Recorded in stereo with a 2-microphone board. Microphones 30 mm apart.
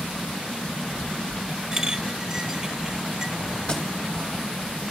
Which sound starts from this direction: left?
A thud, at 3.7 s.